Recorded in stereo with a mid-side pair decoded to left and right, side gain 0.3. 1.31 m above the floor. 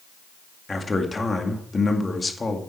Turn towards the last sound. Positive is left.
turn(degrees=40)